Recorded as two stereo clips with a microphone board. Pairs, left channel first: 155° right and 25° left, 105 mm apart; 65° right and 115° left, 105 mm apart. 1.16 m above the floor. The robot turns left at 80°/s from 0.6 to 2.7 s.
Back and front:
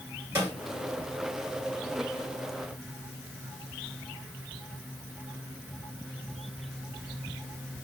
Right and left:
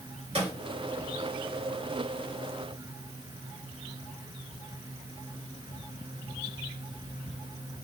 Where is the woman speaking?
I don't hear a woman speaking.